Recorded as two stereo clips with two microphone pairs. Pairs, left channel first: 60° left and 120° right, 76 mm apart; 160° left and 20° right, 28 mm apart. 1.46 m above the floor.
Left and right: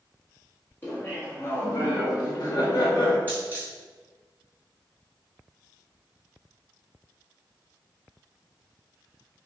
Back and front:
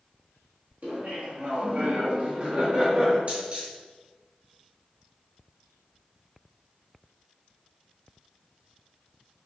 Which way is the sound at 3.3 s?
Straight ahead.